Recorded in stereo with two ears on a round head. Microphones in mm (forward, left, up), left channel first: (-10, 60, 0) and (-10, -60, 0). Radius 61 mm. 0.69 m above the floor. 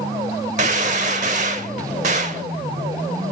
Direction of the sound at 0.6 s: 55° right (ahead or behind).